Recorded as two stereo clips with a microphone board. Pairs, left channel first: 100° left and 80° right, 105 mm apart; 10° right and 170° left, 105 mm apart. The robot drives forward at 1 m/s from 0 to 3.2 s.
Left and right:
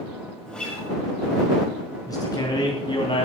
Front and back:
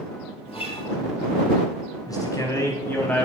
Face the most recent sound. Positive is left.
turn(degrees=65)